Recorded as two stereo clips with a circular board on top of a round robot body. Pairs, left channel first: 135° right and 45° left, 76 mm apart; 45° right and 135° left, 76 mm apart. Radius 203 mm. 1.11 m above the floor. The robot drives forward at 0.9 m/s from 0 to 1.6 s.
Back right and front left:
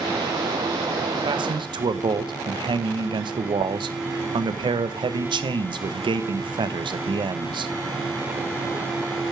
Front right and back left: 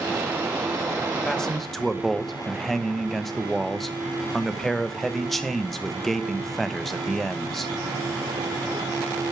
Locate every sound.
1.2 s a man speaking: 35° left, 1.5 m; by 7.7 s 40° left, 1.2 m